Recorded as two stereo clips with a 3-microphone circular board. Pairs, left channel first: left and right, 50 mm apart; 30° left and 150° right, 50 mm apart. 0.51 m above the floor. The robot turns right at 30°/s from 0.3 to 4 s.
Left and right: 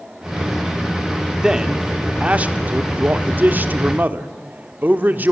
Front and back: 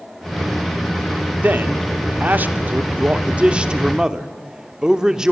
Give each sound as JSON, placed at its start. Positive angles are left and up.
{"t": 1.4, "sound": "a man speaking", "azimuth_deg": -160, "distance_m": 1.3}